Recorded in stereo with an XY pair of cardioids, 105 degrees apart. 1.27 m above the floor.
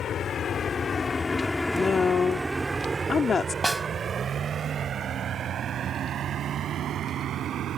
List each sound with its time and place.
0.0 s a vehicle: 55° left; by 7.8 s 65° right
1.7 s a woman speaking: 35° left
3.6 s a snare drum: 15° right